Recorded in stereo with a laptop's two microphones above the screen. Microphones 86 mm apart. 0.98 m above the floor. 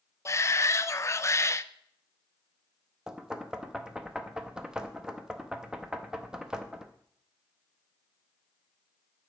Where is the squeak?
No squeak in this recording.